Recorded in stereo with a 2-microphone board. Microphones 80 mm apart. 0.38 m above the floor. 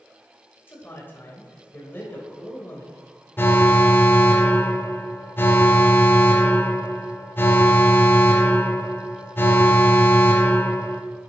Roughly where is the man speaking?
Left.